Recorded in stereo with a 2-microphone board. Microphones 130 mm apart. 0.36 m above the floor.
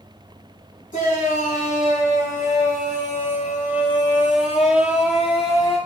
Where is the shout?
80° left, 6.5 m; by 5.8 s 55° left (ahead or behind), 8.5 m.